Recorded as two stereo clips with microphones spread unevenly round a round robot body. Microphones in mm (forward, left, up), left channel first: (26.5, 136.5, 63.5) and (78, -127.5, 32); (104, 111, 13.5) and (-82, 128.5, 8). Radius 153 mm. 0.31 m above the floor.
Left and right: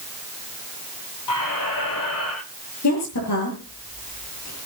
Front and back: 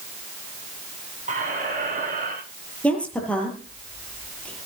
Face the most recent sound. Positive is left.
turn(degrees=80)